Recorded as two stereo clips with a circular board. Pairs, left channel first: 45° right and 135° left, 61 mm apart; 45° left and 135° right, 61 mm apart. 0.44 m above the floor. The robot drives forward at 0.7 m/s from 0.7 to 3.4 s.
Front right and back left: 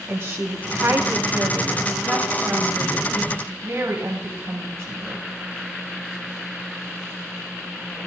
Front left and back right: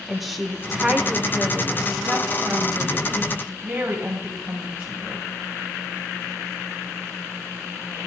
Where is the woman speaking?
140° left, 1.2 m; by 5.2 s 170° left, 2.5 m.